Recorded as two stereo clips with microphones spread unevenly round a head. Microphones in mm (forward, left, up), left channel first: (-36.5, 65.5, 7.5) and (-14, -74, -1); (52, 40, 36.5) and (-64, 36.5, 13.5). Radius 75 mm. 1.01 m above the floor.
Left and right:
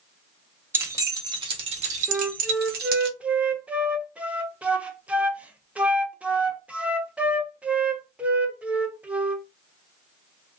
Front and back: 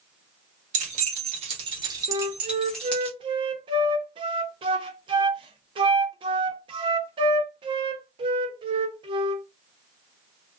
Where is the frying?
I don't hear frying.